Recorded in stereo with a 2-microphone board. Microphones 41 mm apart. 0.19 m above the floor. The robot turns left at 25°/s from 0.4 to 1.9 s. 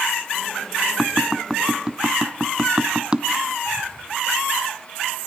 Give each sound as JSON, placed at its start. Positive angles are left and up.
{"t": 1.0, "sound": "tapping", "side_deg": -5, "distance_m": 0.7}